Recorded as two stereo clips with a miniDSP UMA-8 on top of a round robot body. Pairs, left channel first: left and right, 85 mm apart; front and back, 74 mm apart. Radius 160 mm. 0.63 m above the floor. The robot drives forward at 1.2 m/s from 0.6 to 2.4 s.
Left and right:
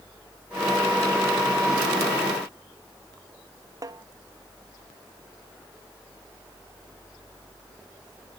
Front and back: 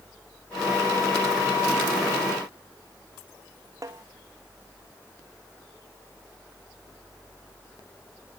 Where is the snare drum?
140° right.